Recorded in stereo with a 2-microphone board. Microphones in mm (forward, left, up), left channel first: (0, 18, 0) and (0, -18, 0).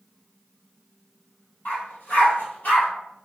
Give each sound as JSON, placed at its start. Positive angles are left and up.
{"t": 1.6, "sound": "a dog barking", "side_deg": 65, "distance_m": 1.7}